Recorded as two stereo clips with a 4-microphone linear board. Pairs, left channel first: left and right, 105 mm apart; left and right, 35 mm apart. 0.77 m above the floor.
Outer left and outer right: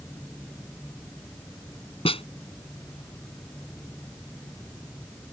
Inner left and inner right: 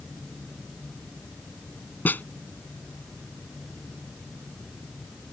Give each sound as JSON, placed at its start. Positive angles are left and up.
{"t": 2.0, "sound": "a snare drum", "side_deg": 60}